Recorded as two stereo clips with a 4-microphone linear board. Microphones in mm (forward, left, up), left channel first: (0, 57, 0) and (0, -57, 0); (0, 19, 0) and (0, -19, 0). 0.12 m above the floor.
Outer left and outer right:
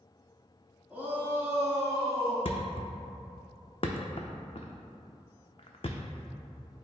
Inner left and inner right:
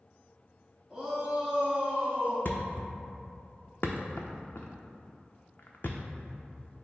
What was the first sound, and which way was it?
A shout, 10° right (ahead or behind).